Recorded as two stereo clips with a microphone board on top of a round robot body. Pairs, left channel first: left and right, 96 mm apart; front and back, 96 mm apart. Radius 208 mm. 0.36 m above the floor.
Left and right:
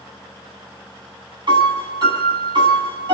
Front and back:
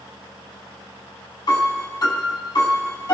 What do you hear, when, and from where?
1.5 s a piano: 50° right, 7.5 m